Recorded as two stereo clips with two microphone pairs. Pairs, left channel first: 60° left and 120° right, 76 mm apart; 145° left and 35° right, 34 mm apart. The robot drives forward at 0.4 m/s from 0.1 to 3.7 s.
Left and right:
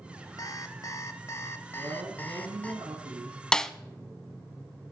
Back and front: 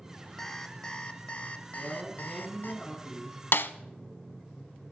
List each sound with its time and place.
0.4 s an alarm clock: 70° left, 1.0 m; by 2.7 s 130° left, 1.2 m
1.7 s a man speaking: 115° right, 4 m; by 3.4 s 120° right, 4 m
3.5 s a snare drum: 140° left, 0.5 m; by 3.7 s 145° left, 0.6 m